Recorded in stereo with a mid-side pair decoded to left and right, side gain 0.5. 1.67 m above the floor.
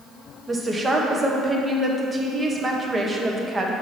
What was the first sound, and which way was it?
A woman speaking, 25° right.